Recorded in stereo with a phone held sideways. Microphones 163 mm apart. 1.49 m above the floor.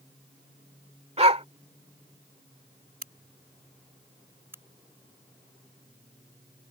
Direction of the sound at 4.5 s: 15° right (ahead or behind).